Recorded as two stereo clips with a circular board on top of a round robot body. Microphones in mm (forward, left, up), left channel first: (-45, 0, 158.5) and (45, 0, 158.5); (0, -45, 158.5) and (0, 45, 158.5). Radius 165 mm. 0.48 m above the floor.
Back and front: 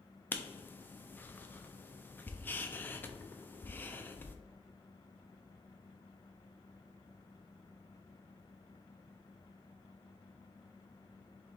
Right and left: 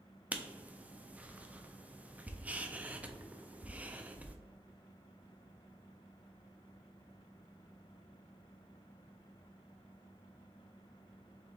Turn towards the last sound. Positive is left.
turn(degrees=145)